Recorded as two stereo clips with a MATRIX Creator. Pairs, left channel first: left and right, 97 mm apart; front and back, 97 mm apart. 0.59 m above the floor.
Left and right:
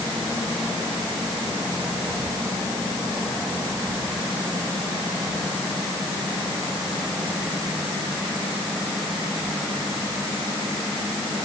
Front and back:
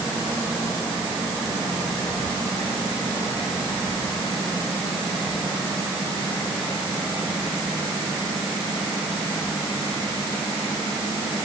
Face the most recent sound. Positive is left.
No sound to turn to.